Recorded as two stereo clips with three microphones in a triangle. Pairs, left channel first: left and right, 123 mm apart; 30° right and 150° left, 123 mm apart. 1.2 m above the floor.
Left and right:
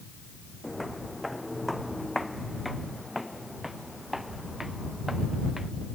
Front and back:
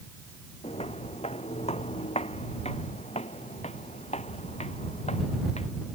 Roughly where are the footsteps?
Ahead.